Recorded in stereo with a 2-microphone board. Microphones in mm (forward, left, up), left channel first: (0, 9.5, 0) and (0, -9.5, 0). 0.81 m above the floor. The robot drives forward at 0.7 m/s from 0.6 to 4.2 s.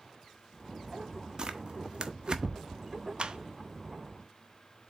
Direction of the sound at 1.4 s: 35° right (ahead or behind).